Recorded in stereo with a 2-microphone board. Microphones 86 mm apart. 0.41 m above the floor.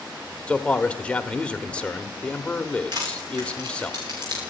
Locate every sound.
0.5 s a man speaking: 15° left (ahead or behind), 1.1 m
2.9 s crushing: 55° right (ahead or behind), 9.5 m